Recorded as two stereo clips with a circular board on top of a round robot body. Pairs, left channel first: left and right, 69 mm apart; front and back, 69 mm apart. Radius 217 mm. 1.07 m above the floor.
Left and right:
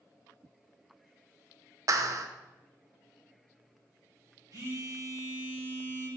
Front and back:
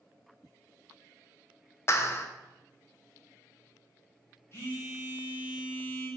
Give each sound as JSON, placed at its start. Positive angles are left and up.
{"t": 1.9, "sound": "a clap", "azimuth_deg": -50, "distance_m": 0.6}
{"t": 4.5, "sound": "a phone buzzing", "azimuth_deg": -55, "distance_m": 4.0}